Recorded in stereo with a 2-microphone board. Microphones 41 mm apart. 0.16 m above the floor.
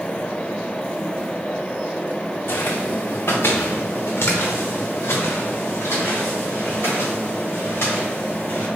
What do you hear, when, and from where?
2.5 s footsteps: 70° left (ahead or behind), 0.8 m